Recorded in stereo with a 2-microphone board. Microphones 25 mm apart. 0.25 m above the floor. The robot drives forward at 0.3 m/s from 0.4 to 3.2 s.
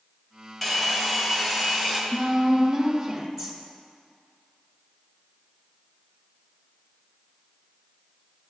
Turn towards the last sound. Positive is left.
turn(degrees=0)  # may be behind; listen again after turning